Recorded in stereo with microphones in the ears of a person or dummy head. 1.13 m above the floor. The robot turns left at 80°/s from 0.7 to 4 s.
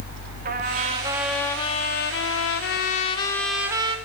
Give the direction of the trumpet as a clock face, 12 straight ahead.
4 o'clock.